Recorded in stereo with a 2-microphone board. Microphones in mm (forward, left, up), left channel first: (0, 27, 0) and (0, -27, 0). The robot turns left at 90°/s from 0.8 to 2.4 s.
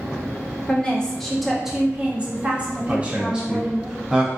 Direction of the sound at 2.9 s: 15° right (ahead or behind).